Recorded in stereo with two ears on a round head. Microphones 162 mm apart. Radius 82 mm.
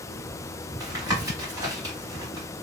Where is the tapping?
20° right (ahead or behind), 1.5 m.